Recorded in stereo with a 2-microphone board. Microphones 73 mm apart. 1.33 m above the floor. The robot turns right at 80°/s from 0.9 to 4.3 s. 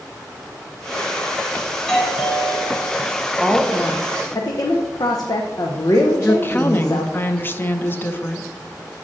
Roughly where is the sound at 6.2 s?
Left.